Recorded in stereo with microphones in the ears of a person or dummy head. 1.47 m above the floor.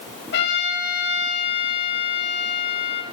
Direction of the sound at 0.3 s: 65° left (ahead or behind).